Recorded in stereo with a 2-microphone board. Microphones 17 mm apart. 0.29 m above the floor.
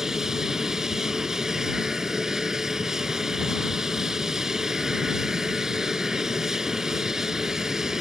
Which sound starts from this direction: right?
An aircraft, at 0.0 s.